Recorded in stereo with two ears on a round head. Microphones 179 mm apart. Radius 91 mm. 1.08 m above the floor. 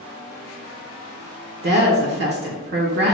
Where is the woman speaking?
55° right (ahead or behind), 0.7 m.